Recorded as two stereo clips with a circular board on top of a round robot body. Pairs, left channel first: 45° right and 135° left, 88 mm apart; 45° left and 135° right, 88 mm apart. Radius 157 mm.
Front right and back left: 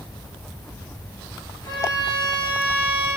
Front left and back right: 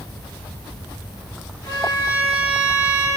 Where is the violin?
Straight ahead, 2.5 m.